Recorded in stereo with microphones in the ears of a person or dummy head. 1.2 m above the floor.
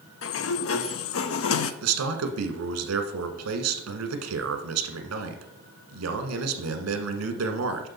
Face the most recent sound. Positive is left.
turn(degrees=-85)